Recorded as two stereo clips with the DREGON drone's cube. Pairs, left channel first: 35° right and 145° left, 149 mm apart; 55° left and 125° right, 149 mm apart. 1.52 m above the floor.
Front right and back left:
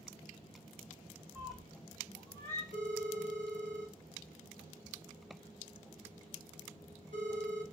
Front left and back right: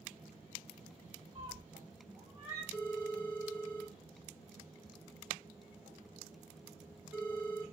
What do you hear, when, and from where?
1.4 s a cat meowing: 145° right, 1.2 m; by 2.6 s 75° right, 1.0 m
2.7 s a phone ringing: 150° left, 1.5 m